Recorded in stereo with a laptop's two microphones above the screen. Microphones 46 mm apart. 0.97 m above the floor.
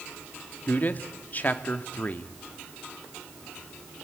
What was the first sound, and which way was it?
A man speaking, 40° left (ahead or behind).